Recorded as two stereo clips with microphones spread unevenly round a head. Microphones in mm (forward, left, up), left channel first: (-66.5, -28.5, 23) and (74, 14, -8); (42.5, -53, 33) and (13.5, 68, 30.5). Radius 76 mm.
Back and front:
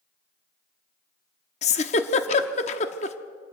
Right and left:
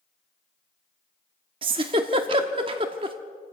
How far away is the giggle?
About 1.0 m.